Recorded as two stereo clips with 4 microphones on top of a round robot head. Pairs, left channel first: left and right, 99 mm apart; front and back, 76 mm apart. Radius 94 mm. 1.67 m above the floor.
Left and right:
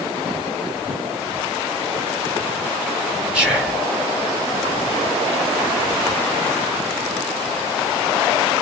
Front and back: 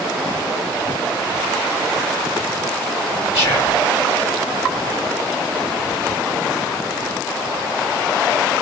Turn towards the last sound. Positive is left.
turn(degrees=-15)